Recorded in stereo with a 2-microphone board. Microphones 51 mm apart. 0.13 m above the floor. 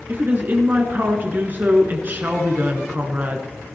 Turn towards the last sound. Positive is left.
turn(degrees=-40)  # may be behind; listen again after turning